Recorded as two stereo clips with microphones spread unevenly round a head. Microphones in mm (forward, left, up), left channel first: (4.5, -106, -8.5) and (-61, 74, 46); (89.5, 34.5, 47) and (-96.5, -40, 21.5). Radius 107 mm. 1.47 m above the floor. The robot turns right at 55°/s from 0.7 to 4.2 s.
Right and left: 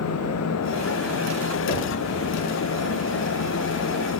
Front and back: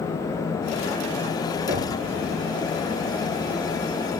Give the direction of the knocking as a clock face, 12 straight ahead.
3 o'clock.